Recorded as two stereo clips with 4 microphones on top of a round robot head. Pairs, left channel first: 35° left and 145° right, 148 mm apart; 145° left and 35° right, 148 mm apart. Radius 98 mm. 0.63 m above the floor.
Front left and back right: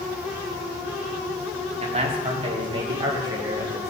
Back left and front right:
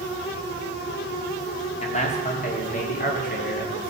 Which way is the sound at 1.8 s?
Straight behind.